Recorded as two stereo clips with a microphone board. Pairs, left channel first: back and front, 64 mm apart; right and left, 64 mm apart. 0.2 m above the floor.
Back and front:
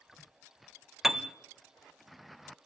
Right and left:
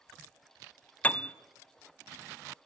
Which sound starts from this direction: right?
A piano, at 1.0 s.